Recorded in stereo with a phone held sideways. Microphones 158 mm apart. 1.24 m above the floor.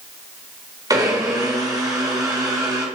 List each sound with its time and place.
0.9 s a blender: 25° right (ahead or behind), 2 m